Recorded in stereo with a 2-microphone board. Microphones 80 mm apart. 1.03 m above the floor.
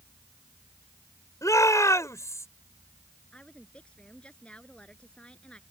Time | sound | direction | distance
1.4 | a shout | 45° left (ahead or behind) | ?
3.3 | a woman speaking | 15° left (ahead or behind) | ?